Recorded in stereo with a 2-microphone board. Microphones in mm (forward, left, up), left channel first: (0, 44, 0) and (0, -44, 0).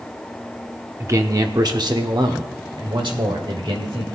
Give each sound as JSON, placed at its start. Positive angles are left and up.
{"t": 1.0, "sound": "a man speaking", "side_deg": -30, "distance_m": 0.9}